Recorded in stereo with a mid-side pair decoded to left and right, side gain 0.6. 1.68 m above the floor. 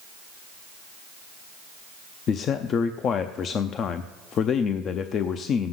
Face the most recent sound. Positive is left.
turn(degrees=45)